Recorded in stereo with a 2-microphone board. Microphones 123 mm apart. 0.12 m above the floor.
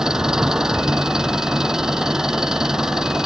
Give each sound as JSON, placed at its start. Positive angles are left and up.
{"t": 0.0, "sound": "an engine running", "side_deg": -5}